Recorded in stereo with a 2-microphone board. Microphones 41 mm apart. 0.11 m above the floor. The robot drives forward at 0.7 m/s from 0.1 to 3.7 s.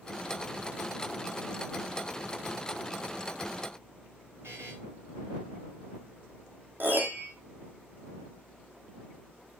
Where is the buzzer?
80° right, 4 m.